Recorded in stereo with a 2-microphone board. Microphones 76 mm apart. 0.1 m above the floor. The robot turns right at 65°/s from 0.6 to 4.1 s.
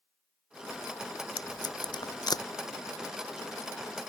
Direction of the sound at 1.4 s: 50° left (ahead or behind).